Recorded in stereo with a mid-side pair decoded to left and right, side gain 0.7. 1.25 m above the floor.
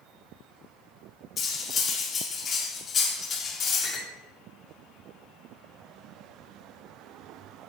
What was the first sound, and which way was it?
Cutlery clinking, 35° left.